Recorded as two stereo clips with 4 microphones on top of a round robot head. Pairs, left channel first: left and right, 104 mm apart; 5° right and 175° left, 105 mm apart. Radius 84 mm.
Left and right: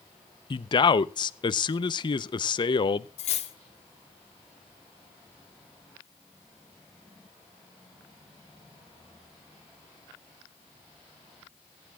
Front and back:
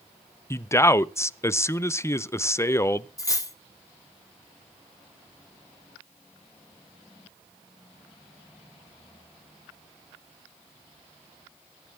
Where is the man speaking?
55° left, 0.6 m.